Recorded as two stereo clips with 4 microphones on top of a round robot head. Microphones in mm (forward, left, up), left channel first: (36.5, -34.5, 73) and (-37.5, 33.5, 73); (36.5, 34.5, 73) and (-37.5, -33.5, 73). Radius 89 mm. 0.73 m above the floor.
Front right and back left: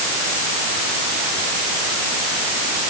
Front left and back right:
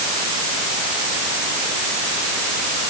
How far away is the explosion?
I don't hear an explosion.